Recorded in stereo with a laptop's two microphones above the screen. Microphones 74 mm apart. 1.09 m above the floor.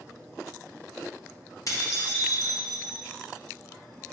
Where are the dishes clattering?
50° left (ahead or behind), 1.1 m.